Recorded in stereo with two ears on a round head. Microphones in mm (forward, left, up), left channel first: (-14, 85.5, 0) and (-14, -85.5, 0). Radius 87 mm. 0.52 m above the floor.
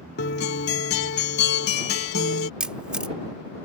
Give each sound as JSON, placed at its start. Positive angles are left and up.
{"t": 0.2, "sound": "a guitar", "side_deg": 55}
{"t": 2.6, "sound": "a camera shutter", "side_deg": -5}